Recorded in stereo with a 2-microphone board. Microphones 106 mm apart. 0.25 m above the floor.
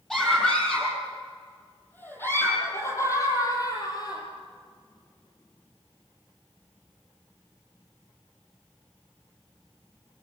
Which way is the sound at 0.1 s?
5° left (ahead or behind).